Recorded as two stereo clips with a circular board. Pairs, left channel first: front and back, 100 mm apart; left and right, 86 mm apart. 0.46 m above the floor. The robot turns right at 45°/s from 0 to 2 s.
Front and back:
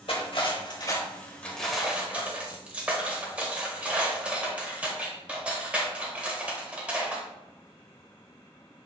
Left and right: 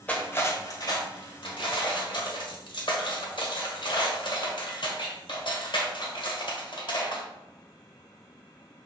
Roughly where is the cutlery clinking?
Ahead.